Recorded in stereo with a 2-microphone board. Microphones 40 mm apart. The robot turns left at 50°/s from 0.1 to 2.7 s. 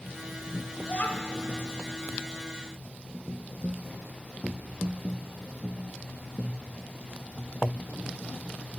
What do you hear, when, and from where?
0.8 s a child speaking: 40° left (ahead or behind), 0.8 m